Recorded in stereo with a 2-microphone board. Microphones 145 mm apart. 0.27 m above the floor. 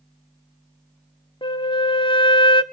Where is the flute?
35° left (ahead or behind), 0.6 m.